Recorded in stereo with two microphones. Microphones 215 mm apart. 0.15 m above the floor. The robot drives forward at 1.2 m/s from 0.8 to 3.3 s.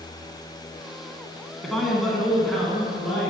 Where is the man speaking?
Centre (ahead or behind), 1.6 m.